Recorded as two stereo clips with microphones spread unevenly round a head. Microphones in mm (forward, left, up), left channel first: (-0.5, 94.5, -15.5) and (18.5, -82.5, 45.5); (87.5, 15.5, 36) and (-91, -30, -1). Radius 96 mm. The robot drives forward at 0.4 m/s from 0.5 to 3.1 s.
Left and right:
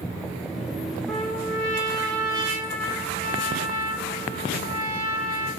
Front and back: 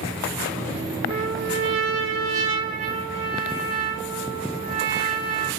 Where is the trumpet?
150° right, 1.0 m; by 5.5 s 165° right, 1.6 m.